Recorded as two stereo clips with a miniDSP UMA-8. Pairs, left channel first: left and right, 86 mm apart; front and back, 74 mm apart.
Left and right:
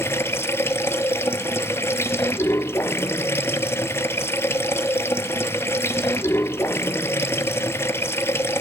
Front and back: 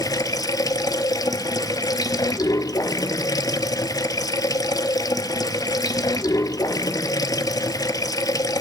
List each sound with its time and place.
0.0 s running water: 30° left, 0.8 m